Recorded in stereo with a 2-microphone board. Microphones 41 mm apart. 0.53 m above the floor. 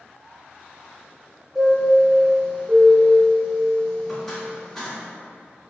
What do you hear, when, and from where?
1.6 s a chime: 10° left (ahead or behind), 1.5 m